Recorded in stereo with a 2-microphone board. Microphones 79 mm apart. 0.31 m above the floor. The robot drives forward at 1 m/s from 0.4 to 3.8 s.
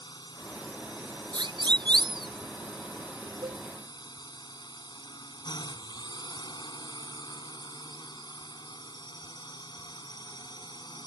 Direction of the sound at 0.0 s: 65° left (ahead or behind).